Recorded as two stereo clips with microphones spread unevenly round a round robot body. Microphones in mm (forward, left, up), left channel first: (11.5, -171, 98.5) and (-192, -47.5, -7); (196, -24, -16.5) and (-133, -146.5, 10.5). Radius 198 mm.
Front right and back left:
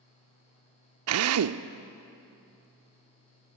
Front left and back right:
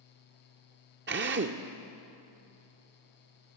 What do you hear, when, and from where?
1.1 s a drill: 135° left, 0.5 m